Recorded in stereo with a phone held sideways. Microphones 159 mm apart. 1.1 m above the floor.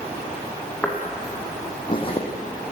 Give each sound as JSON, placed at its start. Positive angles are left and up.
{"t": 0.8, "sound": "footsteps", "side_deg": 10, "distance_m": 3.5}